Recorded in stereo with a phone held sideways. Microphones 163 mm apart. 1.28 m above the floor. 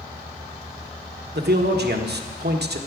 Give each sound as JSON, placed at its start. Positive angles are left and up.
{"t": 1.4, "sound": "a man speaking", "side_deg": -90, "distance_m": 1.2}